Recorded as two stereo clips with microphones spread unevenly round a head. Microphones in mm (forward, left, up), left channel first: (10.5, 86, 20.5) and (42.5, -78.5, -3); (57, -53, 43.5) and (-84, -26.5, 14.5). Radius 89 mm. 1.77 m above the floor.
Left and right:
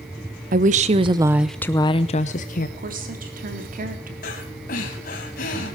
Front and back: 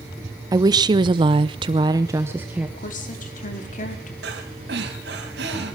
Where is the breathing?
135° left, 3.5 m.